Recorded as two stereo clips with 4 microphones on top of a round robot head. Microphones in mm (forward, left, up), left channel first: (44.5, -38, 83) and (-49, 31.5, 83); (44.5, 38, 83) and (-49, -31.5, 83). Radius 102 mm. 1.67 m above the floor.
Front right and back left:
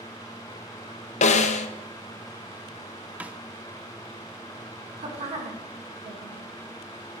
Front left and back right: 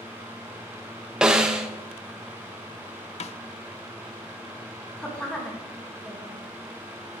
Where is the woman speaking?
120° left, 2 m.